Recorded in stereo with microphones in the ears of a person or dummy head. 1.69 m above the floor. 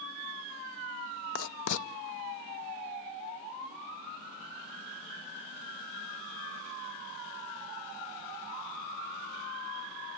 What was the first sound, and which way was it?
Writing, 65° left (ahead or behind).